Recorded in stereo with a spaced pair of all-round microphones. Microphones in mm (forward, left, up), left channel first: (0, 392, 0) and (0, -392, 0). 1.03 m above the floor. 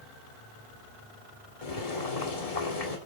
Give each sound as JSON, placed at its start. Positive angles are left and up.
{"t": 1.6, "sound": "boiling", "side_deg": 50, "distance_m": 1.8}